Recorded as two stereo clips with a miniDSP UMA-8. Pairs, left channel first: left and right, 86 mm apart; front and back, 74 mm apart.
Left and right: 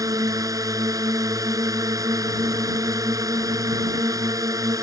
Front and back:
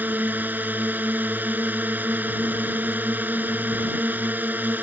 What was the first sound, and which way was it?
A drone, 120° right.